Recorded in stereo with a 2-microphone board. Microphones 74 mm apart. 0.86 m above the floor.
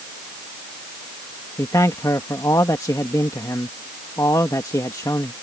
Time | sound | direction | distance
1.6 | a man speaking | 50° left (ahead or behind) | ?